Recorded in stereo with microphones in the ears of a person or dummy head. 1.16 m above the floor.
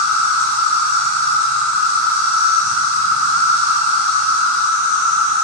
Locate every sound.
0.0 s an insect: 15° left (ahead or behind), 1.7 m